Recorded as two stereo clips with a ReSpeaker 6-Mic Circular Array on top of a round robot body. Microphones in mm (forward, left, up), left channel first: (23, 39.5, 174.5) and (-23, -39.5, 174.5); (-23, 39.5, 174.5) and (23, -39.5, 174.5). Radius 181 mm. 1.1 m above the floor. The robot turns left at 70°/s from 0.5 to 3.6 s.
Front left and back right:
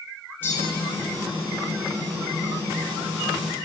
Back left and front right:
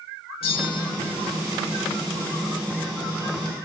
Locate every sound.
0.4 s a bell: 130° left, 1.8 m; by 0.9 s 100° left, 1.8 m